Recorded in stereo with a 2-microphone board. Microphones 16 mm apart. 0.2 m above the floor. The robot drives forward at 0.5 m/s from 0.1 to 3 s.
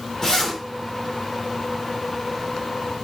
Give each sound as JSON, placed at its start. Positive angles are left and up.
{"t": 0.2, "sound": "a zipper", "side_deg": 25, "distance_m": 1.7}